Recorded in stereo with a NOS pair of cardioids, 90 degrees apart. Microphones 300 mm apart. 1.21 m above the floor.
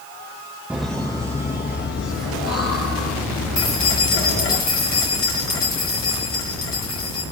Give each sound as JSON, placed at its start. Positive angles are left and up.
{"t": 0.7, "sound": "laughter", "azimuth_deg": -5, "distance_m": 1.2}
{"t": 3.6, "sound": "keys jangling", "azimuth_deg": 55, "distance_m": 3.5}